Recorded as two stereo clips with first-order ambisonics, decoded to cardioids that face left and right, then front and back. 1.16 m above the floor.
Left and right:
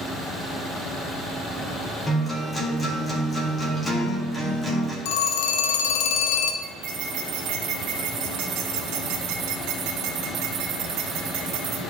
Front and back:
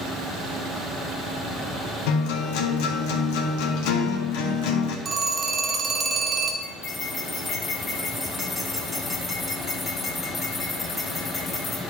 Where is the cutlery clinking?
70° right, 1.9 m.